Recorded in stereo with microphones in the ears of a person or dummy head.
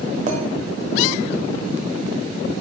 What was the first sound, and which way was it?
A clink, 35° right (ahead or behind).